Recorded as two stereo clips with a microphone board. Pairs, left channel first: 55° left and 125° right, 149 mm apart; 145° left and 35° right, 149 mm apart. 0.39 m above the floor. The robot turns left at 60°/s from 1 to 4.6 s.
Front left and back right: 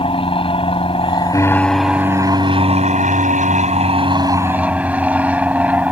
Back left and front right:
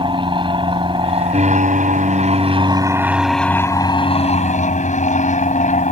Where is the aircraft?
15° left; by 5.9 s 155° left.